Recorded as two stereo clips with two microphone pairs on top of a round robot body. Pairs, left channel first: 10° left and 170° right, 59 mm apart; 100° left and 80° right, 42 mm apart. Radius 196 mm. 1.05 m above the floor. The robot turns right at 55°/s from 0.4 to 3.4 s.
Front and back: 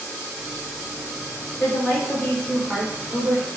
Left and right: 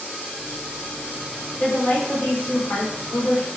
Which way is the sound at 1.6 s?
30° left.